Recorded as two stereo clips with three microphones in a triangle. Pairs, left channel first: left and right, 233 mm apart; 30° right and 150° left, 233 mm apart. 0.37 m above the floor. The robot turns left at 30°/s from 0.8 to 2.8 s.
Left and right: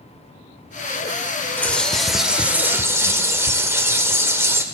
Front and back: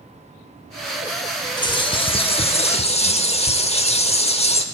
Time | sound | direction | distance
1.6 | a bird | 15° left | 0.6 m